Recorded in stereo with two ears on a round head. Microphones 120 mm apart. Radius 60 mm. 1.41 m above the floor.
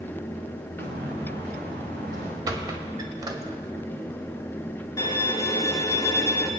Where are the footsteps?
75° right (ahead or behind), 5.5 m; by 2.4 s 70° right (ahead or behind), 7 m.